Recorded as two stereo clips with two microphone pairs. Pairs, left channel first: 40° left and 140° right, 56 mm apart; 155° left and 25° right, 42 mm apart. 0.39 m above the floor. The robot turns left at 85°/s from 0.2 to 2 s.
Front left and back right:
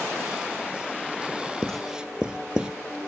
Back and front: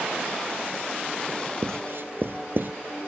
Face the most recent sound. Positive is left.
turn(degrees=-65)